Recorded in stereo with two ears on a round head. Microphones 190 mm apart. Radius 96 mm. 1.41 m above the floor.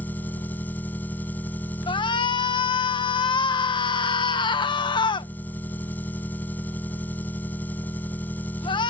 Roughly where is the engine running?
Centre.